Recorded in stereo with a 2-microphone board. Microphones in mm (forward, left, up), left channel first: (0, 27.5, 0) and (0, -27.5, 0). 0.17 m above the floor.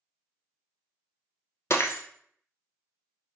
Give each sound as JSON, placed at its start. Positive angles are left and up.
{"t": 1.7, "sound": "breaking glass", "side_deg": 60, "distance_m": 0.9}